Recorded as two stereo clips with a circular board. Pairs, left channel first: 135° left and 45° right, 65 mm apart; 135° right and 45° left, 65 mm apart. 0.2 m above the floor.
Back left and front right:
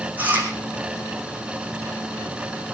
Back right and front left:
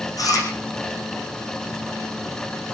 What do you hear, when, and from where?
0.2 s chewing: 110° right, 4 m